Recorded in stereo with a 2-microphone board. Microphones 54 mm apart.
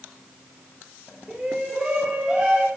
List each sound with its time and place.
1.3 s a shout: 10° right (ahead or behind), 9 m; by 2.7 s 15° right (ahead or behind), 7 m